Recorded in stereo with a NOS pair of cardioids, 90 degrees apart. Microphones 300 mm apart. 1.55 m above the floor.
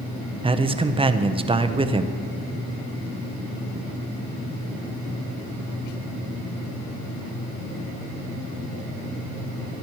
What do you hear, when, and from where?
0.4 s a man speaking: 20° right, 0.7 m